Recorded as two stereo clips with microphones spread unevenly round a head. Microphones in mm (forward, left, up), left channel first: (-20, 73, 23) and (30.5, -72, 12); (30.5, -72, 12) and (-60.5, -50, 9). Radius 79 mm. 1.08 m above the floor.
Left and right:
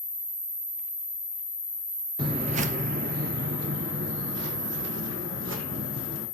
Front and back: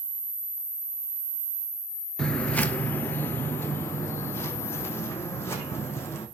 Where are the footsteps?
80° right, 1.1 m; by 6.2 s 75° right, 4.5 m.